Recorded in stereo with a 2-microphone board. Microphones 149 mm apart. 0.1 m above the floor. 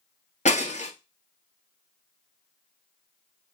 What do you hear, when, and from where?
0.5 s breaking glass: 55° left (ahead or behind), 1.2 m